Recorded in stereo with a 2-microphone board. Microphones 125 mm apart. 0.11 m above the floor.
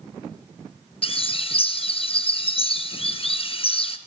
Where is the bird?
45° left (ahead or behind), 1.3 m.